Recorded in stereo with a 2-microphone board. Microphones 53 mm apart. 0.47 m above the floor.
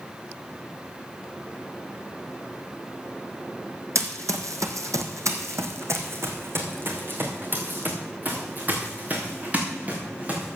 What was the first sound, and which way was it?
Running footsteps, 65° right (ahead or behind).